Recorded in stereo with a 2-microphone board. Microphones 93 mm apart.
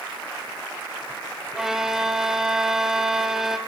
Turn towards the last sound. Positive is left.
turn(degrees=-5)  # may be behind; listen again after turning